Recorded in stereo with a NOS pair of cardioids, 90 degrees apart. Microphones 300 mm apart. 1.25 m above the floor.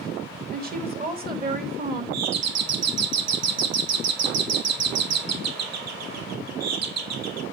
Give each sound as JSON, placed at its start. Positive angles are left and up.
{"t": 0.5, "sound": "a woman speaking", "azimuth_deg": -30, "distance_m": 2.5}
{"t": 2.1, "sound": "a doorbell", "azimuth_deg": -65, "distance_m": 1.1}